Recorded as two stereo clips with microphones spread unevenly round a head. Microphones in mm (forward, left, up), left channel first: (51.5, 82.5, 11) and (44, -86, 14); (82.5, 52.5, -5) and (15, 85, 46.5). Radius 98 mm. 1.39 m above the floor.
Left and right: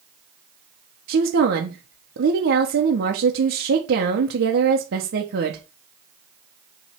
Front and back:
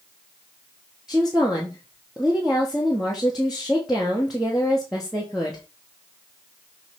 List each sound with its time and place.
1.1 s a woman speaking: 110° right, 1.1 m